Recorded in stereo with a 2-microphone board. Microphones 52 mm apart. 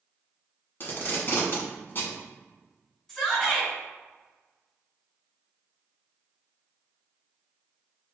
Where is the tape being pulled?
40° left (ahead or behind), 1.1 m.